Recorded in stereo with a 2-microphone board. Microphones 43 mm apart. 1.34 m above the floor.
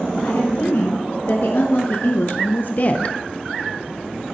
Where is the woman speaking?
75° left (ahead or behind), 2 m; by 3.2 s 30° left (ahead or behind), 0.5 m.